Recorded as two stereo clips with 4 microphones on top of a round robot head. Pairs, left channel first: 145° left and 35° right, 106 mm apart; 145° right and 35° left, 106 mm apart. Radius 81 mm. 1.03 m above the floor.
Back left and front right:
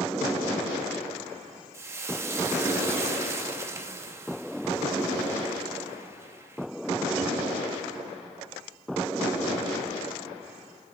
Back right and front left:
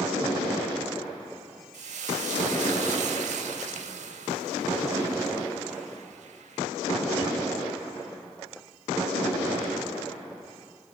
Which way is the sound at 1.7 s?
30° left.